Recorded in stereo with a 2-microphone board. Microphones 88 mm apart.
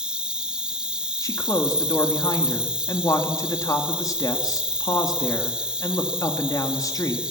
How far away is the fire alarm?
I don't hear a fire alarm.